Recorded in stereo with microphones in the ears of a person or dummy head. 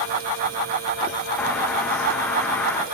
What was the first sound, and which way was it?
A bird, 15° left (ahead or behind).